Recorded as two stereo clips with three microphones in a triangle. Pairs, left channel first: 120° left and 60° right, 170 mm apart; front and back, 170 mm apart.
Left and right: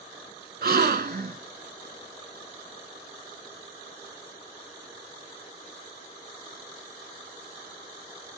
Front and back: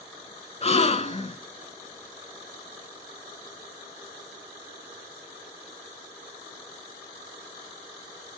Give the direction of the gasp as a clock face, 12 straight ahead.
2 o'clock.